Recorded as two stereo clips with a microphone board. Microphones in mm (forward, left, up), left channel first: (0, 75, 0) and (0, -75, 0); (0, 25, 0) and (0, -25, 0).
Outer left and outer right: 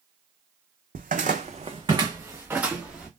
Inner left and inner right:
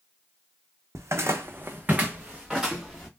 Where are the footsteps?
80° right, 0.5 m; by 3.1 s 5° right (ahead or behind), 1.1 m.